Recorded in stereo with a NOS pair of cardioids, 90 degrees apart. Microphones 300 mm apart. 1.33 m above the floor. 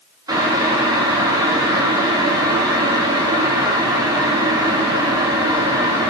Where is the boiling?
10° right, 0.5 m.